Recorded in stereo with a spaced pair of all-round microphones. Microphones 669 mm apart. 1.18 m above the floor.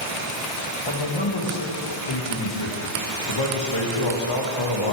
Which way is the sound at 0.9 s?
40° left (ahead or behind).